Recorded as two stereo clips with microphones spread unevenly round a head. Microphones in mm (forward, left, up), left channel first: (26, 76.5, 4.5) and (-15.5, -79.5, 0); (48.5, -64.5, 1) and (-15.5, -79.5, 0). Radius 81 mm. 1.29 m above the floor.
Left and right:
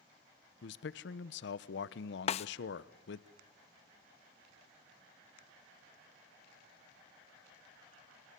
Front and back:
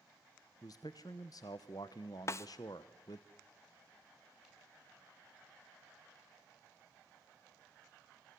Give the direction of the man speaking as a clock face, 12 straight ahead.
10 o'clock.